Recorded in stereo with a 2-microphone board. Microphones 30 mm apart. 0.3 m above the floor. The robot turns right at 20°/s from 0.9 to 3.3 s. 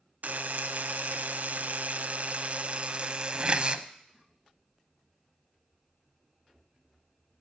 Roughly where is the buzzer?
Right.